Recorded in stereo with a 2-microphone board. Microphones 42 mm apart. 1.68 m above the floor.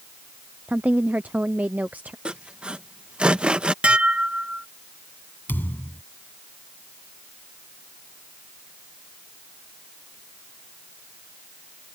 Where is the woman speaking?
45° right (ahead or behind).